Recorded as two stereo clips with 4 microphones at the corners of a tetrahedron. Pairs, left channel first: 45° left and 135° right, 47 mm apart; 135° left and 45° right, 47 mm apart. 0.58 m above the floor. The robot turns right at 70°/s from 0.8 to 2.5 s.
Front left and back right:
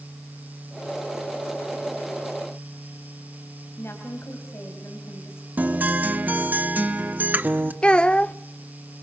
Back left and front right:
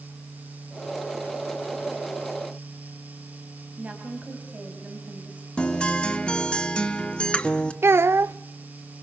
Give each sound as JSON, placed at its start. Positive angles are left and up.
{"t": 3.8, "sound": "a woman speaking", "azimuth_deg": 15, "distance_m": 3.5}
{"t": 5.6, "sound": "a guitar", "azimuth_deg": -165, "distance_m": 1.2}
{"t": 7.8, "sound": "a child speaking", "azimuth_deg": -20, "distance_m": 0.6}